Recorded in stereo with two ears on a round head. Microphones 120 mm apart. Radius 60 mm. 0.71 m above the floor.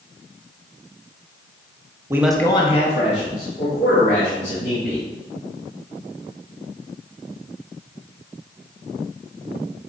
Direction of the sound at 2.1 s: 20° right (ahead or behind).